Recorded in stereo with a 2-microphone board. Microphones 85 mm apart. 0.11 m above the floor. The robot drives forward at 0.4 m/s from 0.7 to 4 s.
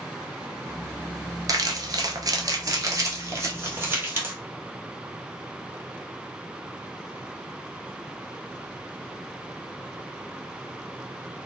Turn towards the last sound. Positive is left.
turn(degrees=-25)  # may be behind; listen again after turning